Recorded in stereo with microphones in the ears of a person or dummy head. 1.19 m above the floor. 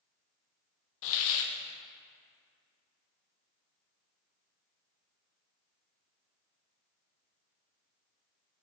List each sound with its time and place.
1.0 s a hiss: 65° left (ahead or behind), 0.6 m